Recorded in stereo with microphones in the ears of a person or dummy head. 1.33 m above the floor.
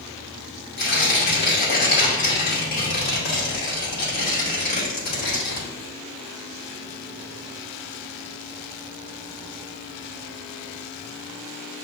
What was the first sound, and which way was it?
Tearing paper, 45° left (ahead or behind).